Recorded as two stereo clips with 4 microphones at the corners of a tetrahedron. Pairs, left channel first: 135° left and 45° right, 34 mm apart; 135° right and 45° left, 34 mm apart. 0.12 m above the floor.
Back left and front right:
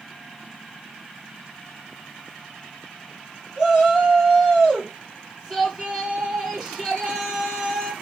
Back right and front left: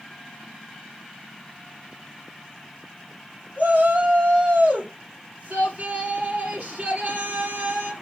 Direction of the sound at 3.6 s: 10° left.